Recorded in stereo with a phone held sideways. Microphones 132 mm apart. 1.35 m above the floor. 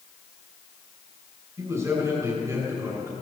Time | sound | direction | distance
1.6 | a man speaking | 25° right (ahead or behind) | 6.5 m